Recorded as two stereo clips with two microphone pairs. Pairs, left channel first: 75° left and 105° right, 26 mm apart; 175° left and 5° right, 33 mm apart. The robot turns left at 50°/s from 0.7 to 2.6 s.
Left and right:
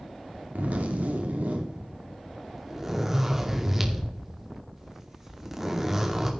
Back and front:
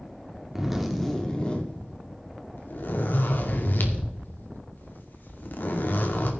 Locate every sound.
0.6 s a zipper: 85° right, 2.5 m; by 6.3 s straight behind, 2.5 m